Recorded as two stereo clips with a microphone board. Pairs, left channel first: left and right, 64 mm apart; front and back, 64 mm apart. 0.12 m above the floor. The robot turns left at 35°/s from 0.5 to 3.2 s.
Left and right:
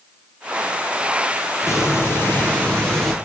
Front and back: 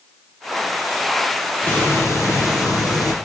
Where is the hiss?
55° left, 2.0 m; by 3.1 s 5° left, 2.0 m.